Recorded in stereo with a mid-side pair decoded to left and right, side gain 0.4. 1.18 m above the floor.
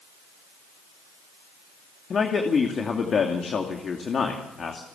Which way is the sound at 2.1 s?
50° left.